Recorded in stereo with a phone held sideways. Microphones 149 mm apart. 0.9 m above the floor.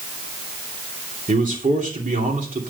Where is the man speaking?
60° right (ahead or behind), 2.5 m.